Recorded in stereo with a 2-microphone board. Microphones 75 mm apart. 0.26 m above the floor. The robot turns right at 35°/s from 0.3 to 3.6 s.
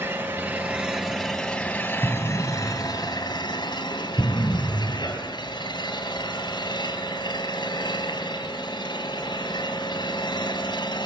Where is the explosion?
5° right (ahead or behind), 0.9 m; by 5.2 s 35° left (ahead or behind), 0.9 m.